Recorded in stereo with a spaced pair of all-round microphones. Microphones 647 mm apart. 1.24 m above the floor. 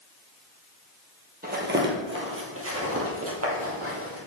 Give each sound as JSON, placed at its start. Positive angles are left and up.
{"t": 1.4, "sound": "footsteps", "side_deg": -15, "distance_m": 1.3}